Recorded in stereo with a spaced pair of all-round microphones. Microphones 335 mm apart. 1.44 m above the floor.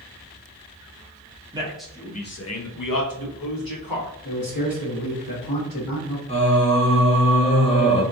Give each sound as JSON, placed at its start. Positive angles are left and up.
{"t": 1.5, "sound": "a man speaking", "side_deg": -15, "distance_m": 0.7}
{"t": 4.2, "sound": "a man speaking", "side_deg": 75, "distance_m": 1.2}
{"t": 6.3, "sound": "singing", "side_deg": 20, "distance_m": 0.6}